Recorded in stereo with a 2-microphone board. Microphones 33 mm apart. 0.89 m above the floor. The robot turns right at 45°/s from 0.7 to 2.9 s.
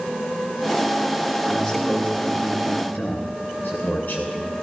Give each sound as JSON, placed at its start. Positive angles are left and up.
{"t": 1.5, "sound": "a man speaking", "azimuth_deg": 0, "distance_m": 8.5}